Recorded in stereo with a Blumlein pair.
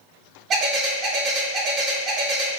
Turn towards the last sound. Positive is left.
turn(degrees=-25)